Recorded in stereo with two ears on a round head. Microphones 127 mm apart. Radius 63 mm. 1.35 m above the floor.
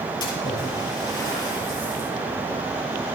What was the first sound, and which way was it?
A splash, 30° left (ahead or behind).